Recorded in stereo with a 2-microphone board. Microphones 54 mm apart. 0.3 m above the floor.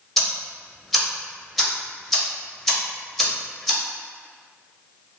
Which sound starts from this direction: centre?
Ticking, at 0.2 s.